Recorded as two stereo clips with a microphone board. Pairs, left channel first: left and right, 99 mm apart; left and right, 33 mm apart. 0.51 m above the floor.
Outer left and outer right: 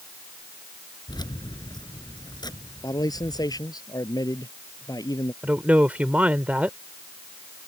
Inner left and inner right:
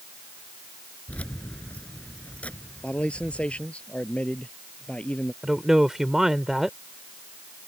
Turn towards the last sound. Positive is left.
turn(degrees=-15)  # may be behind; listen again after turning